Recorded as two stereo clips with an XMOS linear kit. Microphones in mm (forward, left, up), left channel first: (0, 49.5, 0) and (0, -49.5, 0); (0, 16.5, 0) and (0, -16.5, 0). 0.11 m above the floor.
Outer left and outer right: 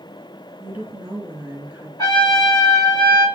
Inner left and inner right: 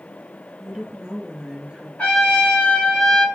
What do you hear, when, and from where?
0.6 s a woman speaking: 20° right (ahead or behind), 1.2 m
2.0 s a trumpet: 40° left (ahead or behind), 2 m